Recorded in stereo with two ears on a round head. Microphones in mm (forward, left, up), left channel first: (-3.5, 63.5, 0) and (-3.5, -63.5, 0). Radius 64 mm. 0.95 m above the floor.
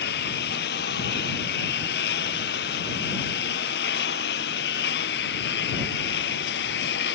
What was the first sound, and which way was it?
A lawn mower, 80° left.